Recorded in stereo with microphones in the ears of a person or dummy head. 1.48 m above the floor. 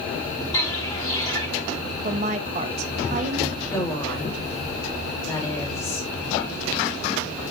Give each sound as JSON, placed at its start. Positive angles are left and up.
{"t": 0.5, "sound": "footsteps", "side_deg": 25, "distance_m": 6.0}
{"t": 2.0, "sound": "a woman speaking", "side_deg": -40, "distance_m": 1.7}
{"t": 3.6, "sound": "a woman speaking", "side_deg": 20, "distance_m": 6.0}